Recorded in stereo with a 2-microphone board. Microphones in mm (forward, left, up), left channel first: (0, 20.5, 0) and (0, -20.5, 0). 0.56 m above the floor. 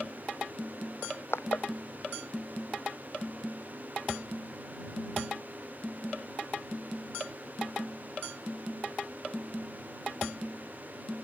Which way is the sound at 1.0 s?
70° left (ahead or behind).